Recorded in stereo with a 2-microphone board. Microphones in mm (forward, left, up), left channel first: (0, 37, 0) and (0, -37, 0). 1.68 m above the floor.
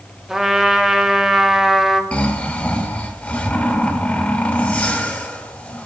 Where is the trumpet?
5° right (ahead or behind), 0.6 m.